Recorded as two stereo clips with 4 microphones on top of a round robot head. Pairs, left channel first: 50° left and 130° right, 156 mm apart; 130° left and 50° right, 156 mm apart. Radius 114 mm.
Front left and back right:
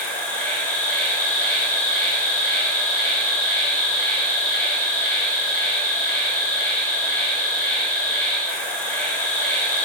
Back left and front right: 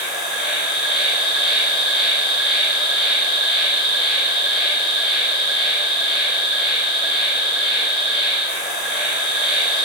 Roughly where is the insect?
Behind left.